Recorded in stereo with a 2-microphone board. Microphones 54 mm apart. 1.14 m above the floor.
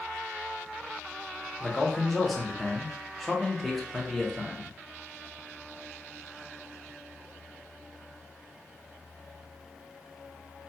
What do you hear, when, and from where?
1.6 s a man speaking: centre (ahead or behind), 0.6 m